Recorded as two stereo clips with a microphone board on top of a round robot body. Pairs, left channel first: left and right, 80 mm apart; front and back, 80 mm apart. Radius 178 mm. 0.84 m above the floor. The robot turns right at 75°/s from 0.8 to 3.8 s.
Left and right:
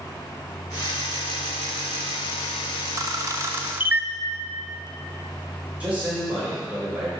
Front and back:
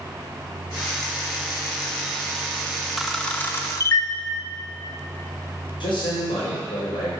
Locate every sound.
3.0 s a camera shutter: 95° right, 1.0 m; by 4.1 s 30° right, 1.0 m
5.8 s a man speaking: 15° right, 4 m